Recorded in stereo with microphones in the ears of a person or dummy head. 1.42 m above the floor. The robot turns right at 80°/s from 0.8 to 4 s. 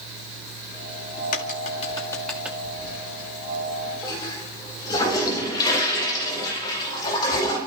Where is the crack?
40° left (ahead or behind), 1.1 m; by 2.5 s 10° right (ahead or behind), 1.1 m.